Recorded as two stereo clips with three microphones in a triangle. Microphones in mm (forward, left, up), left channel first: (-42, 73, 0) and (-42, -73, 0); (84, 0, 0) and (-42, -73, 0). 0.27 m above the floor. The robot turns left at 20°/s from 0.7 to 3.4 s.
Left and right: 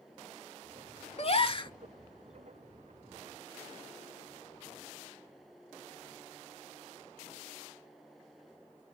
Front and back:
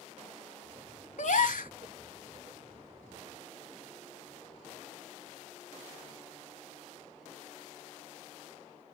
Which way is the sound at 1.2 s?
50° left.